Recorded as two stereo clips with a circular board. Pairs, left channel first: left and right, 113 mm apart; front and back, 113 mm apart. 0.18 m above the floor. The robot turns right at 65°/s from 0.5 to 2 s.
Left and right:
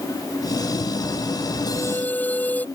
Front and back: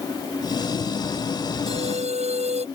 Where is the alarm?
145° left; by 2.6 s 165° left.